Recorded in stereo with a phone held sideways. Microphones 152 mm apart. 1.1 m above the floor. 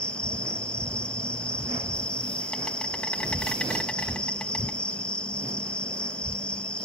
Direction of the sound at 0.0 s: 10° left (ahead or behind).